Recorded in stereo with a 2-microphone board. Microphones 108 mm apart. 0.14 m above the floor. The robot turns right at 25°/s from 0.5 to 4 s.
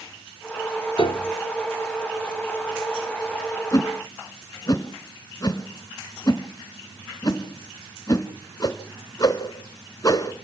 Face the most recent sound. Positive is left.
turn(degrees=35)  # may be behind; listen again after turning